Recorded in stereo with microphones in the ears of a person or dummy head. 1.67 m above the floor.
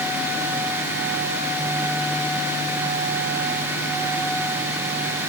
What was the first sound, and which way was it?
Only background noise.